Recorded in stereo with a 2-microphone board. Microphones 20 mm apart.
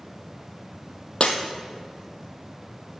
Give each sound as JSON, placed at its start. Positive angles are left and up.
{"t": 1.2, "sound": "breaking glass", "side_deg": 60, "distance_m": 1.4}